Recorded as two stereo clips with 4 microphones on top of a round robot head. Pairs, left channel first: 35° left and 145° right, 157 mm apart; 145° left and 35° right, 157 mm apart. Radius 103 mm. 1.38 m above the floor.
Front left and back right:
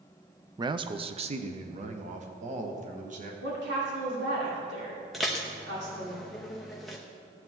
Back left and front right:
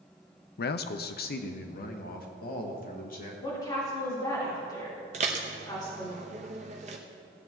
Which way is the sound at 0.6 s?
150° left.